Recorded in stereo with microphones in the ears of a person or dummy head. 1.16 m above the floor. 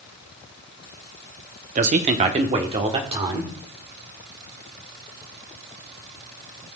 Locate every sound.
1.8 s a man speaking: 35° right (ahead or behind), 0.7 m; by 3.5 s 30° right (ahead or behind), 1.5 m